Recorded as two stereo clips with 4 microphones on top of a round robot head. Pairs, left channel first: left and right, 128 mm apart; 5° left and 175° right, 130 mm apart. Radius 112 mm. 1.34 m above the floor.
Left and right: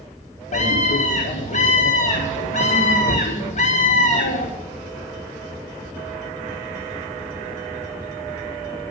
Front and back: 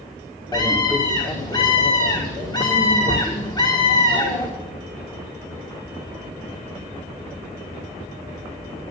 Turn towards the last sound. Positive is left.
turn(degrees=65)